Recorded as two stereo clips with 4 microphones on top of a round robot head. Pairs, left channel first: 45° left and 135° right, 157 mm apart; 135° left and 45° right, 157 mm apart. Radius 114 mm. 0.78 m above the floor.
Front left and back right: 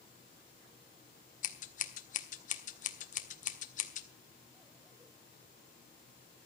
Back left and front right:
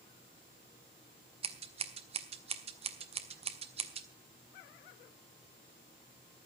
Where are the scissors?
5° left, 1.7 m.